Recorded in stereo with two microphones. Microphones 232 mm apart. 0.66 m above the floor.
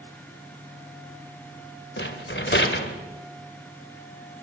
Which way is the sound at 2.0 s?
50° left (ahead or behind).